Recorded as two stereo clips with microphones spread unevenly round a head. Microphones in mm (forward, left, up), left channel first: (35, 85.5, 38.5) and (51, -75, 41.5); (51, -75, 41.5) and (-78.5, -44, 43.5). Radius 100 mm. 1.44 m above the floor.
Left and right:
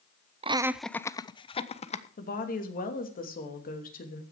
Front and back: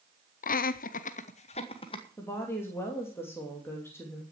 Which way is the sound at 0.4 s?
30° right.